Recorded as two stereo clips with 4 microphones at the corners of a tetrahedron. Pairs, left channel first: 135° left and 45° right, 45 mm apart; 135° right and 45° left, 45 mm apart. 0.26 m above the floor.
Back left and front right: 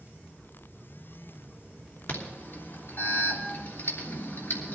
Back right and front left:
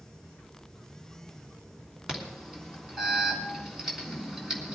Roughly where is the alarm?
Behind left.